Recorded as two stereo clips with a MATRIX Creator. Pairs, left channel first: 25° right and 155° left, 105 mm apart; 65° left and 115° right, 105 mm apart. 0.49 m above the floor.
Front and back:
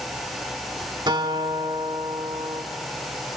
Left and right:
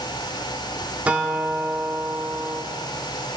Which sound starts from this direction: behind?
A guitar, at 1.1 s.